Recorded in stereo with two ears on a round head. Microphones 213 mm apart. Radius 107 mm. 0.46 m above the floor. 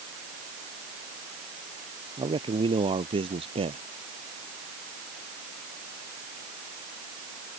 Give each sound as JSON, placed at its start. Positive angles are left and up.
{"t": 2.2, "sound": "a man speaking", "side_deg": -20}